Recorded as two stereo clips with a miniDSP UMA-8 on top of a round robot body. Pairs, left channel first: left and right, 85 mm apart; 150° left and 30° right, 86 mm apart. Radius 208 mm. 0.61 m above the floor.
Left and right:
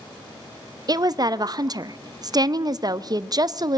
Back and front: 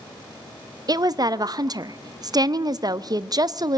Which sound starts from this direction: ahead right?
A woman speaking, at 0.9 s.